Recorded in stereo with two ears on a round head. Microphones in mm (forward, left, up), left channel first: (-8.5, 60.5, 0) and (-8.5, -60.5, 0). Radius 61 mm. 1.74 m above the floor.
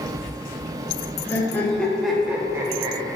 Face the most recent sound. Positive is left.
turn(degrees=-35)  # may be behind; listen again after turning